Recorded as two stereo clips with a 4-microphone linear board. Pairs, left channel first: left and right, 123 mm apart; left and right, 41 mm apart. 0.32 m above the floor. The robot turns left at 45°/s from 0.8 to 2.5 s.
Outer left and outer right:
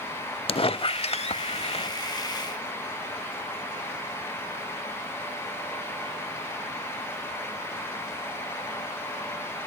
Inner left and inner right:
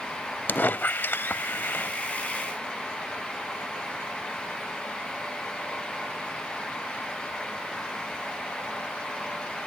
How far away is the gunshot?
No gunshot in this recording.